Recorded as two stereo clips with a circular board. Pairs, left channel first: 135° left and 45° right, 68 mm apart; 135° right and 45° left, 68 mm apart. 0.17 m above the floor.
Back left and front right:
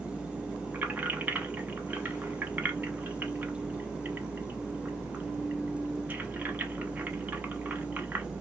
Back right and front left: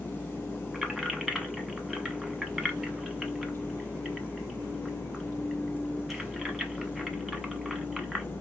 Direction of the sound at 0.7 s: 45° right.